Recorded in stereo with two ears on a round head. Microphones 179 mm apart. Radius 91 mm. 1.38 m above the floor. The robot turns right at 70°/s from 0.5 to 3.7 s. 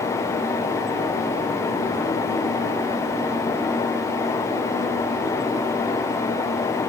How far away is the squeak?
I don't hear a squeak.